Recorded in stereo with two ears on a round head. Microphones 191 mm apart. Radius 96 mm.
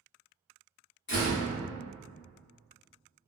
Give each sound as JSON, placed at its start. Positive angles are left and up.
{"t": 1.1, "sound": "a door slam", "side_deg": 55, "distance_m": 1.0}